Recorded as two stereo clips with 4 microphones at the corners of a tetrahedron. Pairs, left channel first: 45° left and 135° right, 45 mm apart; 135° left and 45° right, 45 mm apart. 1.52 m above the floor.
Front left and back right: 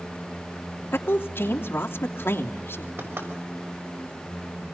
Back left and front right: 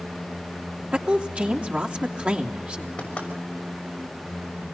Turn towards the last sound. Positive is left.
turn(degrees=-165)